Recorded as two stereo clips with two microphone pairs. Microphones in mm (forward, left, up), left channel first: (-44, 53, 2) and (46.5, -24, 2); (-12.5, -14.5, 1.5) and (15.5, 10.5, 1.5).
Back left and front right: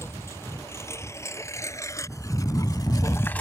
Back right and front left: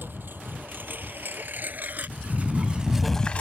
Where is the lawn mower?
70° left; by 3.4 s 150° right.